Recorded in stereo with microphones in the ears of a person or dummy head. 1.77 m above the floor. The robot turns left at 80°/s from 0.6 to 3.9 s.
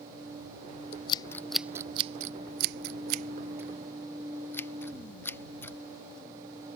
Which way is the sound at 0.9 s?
40° left (ahead or behind).